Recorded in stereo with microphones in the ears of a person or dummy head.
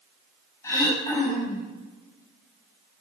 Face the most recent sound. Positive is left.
turn(degrees=15)  # may be behind; listen again after turning